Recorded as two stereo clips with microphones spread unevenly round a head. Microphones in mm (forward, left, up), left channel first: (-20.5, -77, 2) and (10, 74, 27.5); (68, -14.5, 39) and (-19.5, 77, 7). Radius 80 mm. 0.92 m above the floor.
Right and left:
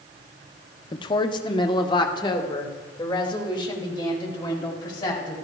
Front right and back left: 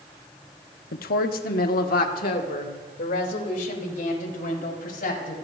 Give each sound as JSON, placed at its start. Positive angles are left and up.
{"t": 0.9, "sound": "a woman speaking", "azimuth_deg": -45, "distance_m": 1.0}